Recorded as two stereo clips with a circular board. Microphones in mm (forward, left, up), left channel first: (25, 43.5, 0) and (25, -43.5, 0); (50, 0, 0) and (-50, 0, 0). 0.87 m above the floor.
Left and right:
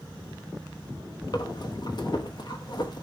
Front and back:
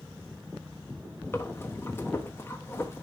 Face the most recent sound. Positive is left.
turn(degrees=65)